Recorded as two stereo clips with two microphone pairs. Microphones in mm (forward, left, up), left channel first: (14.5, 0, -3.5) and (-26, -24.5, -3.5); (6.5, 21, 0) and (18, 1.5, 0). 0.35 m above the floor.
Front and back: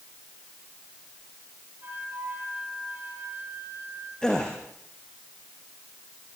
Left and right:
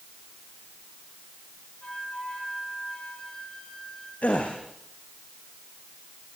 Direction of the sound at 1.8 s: 165° left.